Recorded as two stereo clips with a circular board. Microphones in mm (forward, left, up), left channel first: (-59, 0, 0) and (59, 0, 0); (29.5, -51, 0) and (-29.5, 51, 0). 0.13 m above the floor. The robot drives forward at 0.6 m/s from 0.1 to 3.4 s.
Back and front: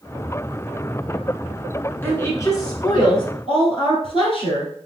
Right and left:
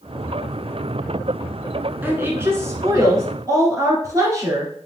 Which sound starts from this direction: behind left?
A woman speaking, at 2.0 s.